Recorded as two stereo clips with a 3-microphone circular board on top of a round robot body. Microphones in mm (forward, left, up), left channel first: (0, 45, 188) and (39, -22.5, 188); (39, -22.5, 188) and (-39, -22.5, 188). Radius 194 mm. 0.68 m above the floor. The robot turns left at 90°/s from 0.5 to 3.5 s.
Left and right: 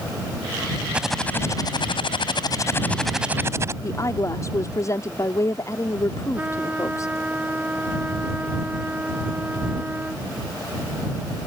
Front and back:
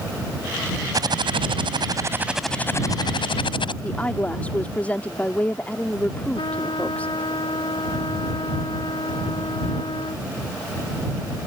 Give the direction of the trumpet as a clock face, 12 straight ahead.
12 o'clock.